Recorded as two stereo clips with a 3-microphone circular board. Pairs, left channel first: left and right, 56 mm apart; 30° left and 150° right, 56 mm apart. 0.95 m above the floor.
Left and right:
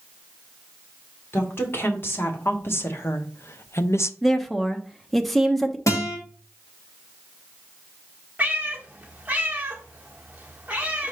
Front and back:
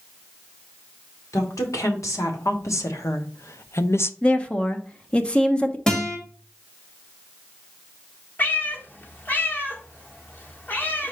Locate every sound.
1.3 s a woman speaking: 45° left, 2 m; by 4.1 s 65° left, 0.5 m
4.2 s a woman speaking: 5° left, 0.7 m
5.9 s a guitar: 100° left, 1.8 m
8.4 s a cat meowing: 25° right, 1.2 m